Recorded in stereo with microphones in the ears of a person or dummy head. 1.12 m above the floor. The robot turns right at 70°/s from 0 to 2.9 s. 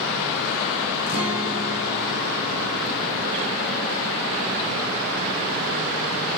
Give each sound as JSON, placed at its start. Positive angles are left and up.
{"t": 1.1, "sound": "a guitar", "azimuth_deg": 85, "distance_m": 5.5}